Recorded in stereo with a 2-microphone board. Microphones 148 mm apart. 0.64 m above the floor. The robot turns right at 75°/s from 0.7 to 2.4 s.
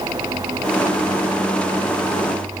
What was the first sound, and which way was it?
Only background noise.